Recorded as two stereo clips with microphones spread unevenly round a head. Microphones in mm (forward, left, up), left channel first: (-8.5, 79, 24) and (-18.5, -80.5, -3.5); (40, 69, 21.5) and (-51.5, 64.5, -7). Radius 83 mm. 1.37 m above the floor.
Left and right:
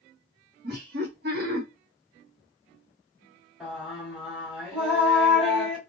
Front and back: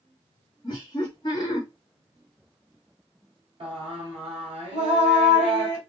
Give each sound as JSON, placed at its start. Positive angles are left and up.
{"t": 0.6, "sound": "laughter", "azimuth_deg": -60, "distance_m": 1.7}
{"t": 3.6, "sound": "singing", "azimuth_deg": 170, "distance_m": 1.6}